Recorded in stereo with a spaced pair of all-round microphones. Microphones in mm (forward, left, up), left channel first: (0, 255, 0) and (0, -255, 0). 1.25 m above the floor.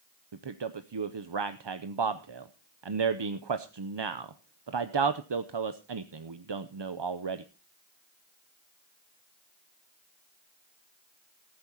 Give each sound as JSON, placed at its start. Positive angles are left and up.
{"t": 0.3, "sound": "a man speaking", "side_deg": -55, "distance_m": 0.7}